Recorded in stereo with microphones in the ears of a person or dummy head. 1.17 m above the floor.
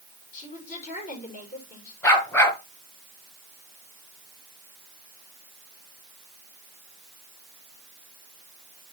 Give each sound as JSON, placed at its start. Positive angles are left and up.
{"t": 0.3, "sound": "a woman speaking", "side_deg": 50, "distance_m": 4.5}
{"t": 2.0, "sound": "a dog barking", "side_deg": 20, "distance_m": 3.5}